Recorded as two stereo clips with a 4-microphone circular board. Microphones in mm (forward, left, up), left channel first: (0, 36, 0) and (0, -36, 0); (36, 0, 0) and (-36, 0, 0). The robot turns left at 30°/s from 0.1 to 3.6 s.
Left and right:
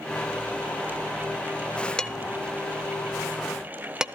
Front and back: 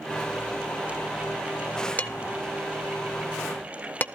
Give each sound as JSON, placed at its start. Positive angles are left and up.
{"t": 2.0, "sound": "dishes clattering", "azimuth_deg": 30, "distance_m": 0.6}